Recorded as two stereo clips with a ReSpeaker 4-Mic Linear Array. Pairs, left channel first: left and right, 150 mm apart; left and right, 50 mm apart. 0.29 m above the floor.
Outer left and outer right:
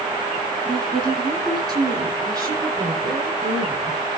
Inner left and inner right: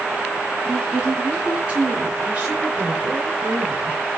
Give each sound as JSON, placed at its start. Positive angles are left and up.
{"t": 0.7, "sound": "a woman speaking", "side_deg": -30, "distance_m": 2.5}